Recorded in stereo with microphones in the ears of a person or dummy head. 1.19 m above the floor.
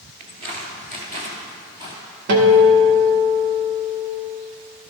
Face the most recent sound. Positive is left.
turn(degrees=-60)  # may be behind; listen again after turning